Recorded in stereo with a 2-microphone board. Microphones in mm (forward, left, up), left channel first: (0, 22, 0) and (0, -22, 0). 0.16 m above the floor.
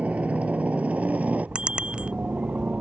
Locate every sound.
0.0 s a helicopter: 30° right (ahead or behind); by 2.8 s 35° right (ahead or behind)
1.6 s a bicycle bell: 20° right (ahead or behind)